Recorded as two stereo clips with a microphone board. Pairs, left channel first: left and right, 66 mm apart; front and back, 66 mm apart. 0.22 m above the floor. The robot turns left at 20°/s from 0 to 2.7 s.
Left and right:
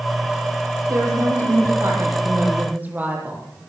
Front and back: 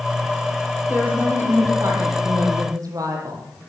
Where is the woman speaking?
115° right, 9.5 m; by 3.5 s 150° right, 9.5 m.